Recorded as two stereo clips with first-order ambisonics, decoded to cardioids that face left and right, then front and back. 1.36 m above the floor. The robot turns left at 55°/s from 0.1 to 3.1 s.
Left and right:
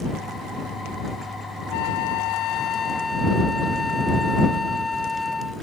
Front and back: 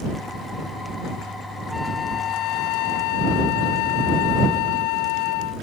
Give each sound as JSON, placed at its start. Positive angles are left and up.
{"t": 1.7, "sound": "a flute", "azimuth_deg": 85}